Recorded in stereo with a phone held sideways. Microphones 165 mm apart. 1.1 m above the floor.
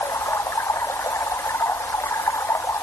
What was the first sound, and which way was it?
Running water, 15° left (ahead or behind).